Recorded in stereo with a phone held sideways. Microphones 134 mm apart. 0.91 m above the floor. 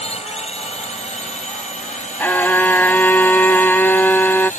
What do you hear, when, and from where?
0.0 s a drone: 55° left (ahead or behind); by 4.6 s 75° left (ahead or behind)
2.2 s a violin: 15° left (ahead or behind)